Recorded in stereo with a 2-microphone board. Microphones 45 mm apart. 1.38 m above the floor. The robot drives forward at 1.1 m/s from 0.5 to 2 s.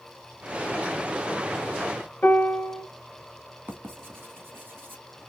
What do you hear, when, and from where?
2.2 s a piano: 45° left (ahead or behind), 1.5 m
3.7 s writing: 45° right (ahead or behind), 1.6 m